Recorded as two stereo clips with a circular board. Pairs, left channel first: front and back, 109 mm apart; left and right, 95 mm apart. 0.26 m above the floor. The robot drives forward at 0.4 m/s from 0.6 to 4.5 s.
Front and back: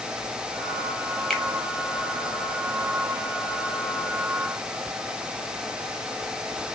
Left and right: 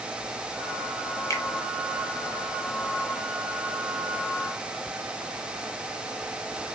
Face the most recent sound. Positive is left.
turn(degrees=155)